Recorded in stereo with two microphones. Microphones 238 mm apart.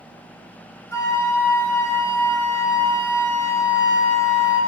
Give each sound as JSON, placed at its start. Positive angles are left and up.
{"t": 0.9, "sound": "a flute", "side_deg": 15, "distance_m": 1.5}